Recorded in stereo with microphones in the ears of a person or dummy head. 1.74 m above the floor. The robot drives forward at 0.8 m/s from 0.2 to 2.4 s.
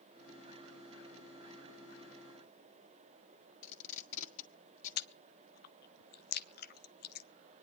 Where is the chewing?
55° left (ahead or behind), 0.6 m.